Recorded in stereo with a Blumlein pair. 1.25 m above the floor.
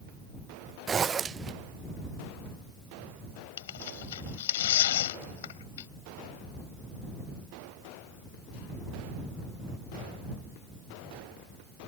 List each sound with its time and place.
0.9 s a zipper: 20° right
3.6 s tearing paper: 60° left